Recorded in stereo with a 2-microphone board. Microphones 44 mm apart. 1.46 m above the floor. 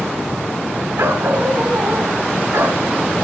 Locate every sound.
1.0 s a dog barking: 80° right, 7 m